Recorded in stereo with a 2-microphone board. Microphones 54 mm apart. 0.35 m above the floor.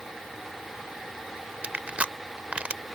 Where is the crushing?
25° right (ahead or behind).